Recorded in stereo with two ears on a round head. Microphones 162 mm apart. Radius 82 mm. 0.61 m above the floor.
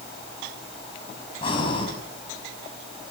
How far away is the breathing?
About 5.5 m.